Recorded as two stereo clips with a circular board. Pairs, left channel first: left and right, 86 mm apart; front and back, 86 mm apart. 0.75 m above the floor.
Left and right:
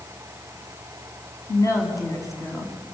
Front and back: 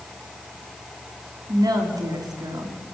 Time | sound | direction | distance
1.5 | a woman speaking | 140° left | 5.5 m